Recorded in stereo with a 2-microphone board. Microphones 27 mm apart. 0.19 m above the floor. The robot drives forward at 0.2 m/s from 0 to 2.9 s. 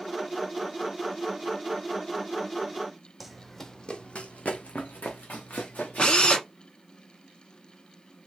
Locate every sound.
3.2 s running footsteps: 5° right (ahead or behind), 0.6 m; by 6.4 s 85° left, 1.8 m
6.0 s a drill: 40° left (ahead or behind), 0.9 m